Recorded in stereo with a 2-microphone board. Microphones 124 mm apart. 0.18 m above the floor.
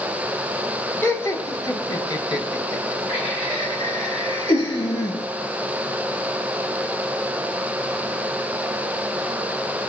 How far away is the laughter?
About 1.0 m.